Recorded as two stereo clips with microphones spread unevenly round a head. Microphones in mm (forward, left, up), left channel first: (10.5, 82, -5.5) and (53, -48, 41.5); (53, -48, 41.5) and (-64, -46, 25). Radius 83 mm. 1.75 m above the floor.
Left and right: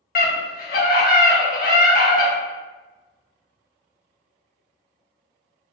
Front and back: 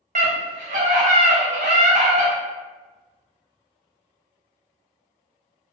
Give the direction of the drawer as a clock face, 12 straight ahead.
I don't hear a drawer.